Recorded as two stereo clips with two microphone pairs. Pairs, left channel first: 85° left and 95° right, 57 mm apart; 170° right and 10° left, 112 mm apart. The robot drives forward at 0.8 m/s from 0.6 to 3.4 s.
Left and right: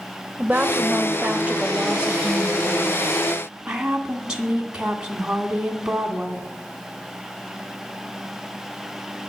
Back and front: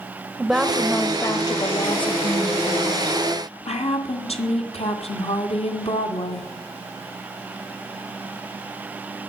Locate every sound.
0.4 s a woman speaking: 75° right, 1.0 m; by 6.5 s 170° right, 2.5 m